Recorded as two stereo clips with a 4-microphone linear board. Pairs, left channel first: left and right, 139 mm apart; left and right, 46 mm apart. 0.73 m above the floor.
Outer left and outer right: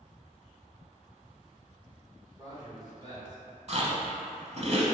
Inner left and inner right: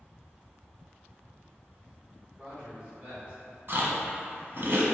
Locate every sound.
2.4 s a man speaking: 30° right (ahead or behind), 2.0 m
3.7 s chewing: 50° right (ahead or behind), 0.9 m